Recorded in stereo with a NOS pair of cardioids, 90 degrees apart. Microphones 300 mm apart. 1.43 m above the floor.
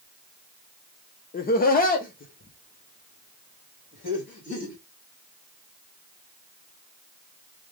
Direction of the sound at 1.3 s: 30° left.